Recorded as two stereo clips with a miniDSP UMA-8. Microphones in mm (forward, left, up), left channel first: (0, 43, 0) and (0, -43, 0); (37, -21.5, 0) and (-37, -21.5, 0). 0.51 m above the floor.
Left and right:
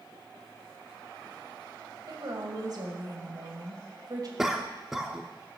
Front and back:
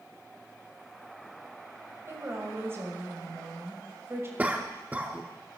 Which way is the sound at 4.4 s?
170° right.